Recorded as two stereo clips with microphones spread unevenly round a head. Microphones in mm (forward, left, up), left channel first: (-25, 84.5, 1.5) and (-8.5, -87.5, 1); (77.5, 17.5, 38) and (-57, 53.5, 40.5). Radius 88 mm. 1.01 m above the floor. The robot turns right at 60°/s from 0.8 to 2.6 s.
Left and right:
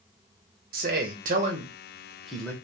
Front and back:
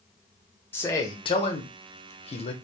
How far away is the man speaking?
About 0.8 m.